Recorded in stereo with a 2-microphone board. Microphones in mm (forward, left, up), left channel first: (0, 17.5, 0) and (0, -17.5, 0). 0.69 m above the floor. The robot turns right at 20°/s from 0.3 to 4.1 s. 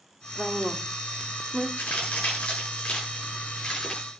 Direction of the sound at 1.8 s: 50° left (ahead or behind).